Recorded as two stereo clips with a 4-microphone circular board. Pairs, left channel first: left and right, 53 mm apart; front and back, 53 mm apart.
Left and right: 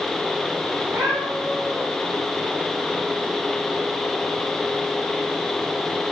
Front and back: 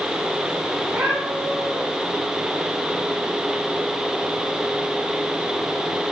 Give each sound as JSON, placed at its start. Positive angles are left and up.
{"t": 0.8, "sound": "a cat meowing", "azimuth_deg": -120, "distance_m": 6.5}